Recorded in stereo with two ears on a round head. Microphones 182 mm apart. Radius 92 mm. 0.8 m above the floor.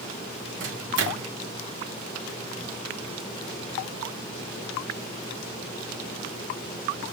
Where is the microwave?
60° right (ahead or behind), 2.5 m.